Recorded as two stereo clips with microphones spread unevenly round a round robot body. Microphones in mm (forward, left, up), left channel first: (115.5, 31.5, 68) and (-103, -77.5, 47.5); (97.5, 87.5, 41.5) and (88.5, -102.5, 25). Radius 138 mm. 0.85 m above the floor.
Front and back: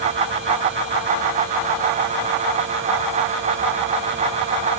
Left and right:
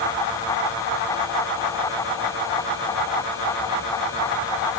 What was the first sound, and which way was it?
Only background noise.